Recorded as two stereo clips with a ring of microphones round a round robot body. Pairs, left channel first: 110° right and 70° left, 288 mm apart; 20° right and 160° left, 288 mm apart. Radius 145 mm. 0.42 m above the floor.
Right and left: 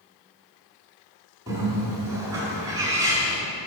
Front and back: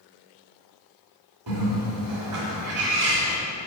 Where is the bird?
145° left, 2.0 m.